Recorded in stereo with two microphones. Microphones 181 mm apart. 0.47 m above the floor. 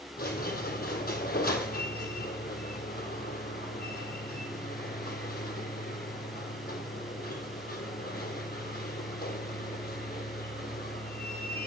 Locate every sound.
0.2 s a squeak: 60° left (ahead or behind), 1.5 m